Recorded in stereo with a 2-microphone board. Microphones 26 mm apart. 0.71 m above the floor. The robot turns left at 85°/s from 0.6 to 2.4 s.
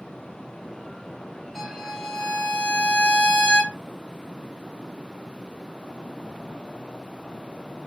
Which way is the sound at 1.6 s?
175° left.